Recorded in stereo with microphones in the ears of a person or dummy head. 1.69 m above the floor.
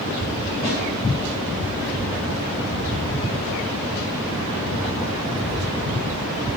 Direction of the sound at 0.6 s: 25° left (ahead or behind).